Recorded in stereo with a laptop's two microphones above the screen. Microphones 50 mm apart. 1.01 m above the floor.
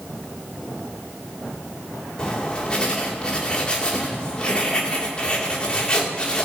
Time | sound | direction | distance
2.2 | writing | 20° left (ahead or behind) | 2.0 m